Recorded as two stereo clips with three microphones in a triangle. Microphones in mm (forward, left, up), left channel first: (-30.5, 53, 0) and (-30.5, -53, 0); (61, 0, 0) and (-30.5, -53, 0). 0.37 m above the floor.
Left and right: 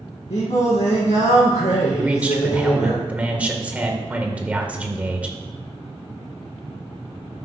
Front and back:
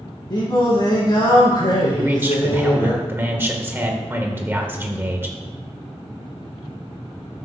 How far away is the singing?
About 4.5 m.